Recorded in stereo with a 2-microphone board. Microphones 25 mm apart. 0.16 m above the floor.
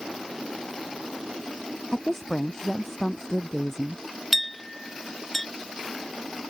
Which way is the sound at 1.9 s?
20° left (ahead or behind).